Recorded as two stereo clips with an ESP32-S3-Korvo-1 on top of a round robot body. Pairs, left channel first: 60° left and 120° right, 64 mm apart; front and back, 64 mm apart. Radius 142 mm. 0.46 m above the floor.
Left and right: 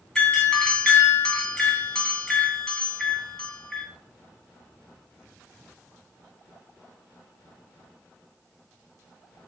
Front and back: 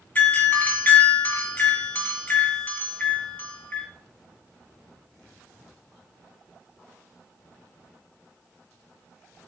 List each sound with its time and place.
0.1 s a doorbell: straight ahead, 1.5 m